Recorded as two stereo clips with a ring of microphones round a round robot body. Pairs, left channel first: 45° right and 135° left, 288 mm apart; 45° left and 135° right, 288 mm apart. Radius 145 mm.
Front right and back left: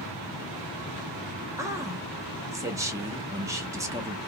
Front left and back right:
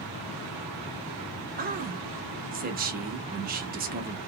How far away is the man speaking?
About 0.8 m.